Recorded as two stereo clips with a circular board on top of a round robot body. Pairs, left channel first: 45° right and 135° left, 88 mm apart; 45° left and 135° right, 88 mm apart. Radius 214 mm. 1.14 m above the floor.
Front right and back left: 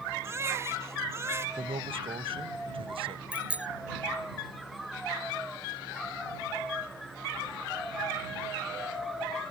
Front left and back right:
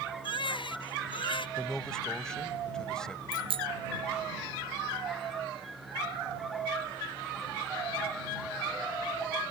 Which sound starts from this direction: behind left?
A man speaking, at 1.6 s.